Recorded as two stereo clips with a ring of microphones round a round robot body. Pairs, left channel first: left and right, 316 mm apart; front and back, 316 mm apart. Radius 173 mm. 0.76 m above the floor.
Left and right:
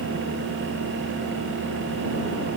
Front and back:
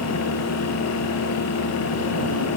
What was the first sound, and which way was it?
Only background noise.